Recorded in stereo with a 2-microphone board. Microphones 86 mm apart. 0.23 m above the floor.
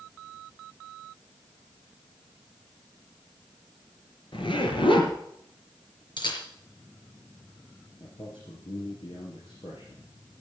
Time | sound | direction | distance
4.3 | a zipper | 70° left (ahead or behind) | 3.5 m
6.2 | a camera shutter | 65° left (ahead or behind) | 4.5 m
8.0 | a man speaking | 75° left (ahead or behind) | 4 m